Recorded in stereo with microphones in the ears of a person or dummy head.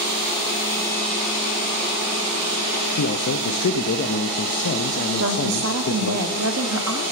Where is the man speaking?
55° left (ahead or behind), 0.6 m.